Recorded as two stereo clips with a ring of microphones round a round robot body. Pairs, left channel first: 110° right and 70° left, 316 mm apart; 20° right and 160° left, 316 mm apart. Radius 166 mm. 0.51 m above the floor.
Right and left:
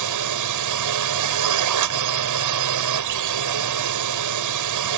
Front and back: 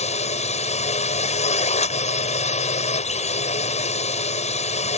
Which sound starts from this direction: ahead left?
A drone, at 0.0 s.